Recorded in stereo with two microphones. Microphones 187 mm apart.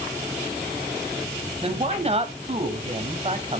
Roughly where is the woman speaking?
Right.